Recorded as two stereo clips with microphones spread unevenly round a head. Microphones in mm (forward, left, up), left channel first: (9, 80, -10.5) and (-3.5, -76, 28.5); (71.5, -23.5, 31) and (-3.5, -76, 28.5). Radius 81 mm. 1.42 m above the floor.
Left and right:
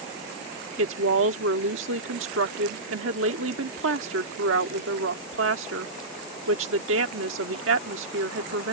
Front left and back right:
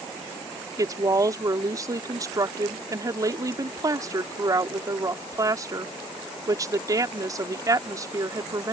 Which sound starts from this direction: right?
A woman speaking, at 0.8 s.